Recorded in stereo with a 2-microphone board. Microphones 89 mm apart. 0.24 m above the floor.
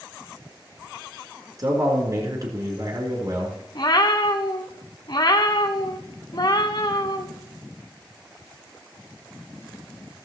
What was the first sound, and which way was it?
A man speaking, 45° right (ahead or behind).